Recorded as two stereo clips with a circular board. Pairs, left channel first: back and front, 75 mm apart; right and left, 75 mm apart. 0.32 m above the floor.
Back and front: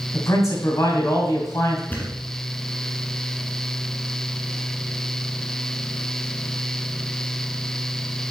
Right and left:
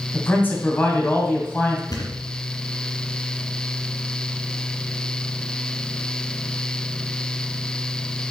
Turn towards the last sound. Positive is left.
turn(degrees=-115)